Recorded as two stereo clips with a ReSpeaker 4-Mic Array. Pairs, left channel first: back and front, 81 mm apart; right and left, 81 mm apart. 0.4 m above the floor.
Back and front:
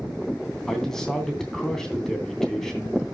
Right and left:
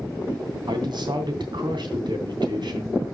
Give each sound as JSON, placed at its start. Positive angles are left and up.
{"t": 0.7, "sound": "a man speaking", "azimuth_deg": 95, "distance_m": 2.5}